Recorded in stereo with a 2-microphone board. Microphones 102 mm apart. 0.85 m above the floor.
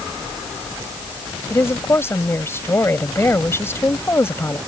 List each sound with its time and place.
1.5 s a woman speaking: 25° left (ahead or behind)